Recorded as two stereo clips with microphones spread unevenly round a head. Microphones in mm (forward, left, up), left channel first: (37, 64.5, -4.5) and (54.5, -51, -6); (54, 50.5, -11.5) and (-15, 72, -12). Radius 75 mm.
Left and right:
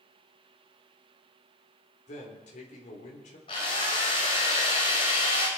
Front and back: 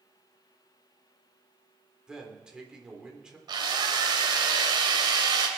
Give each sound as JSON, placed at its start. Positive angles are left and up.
{"t": 2.1, "sound": "a man speaking", "azimuth_deg": 85, "distance_m": 3.5}
{"t": 3.5, "sound": "a drill", "azimuth_deg": 155, "distance_m": 2.5}